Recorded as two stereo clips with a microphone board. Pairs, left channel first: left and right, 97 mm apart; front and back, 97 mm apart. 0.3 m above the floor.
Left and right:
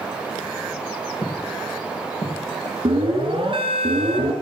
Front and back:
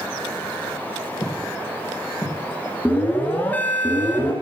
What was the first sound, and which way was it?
Footsteps, 45° left.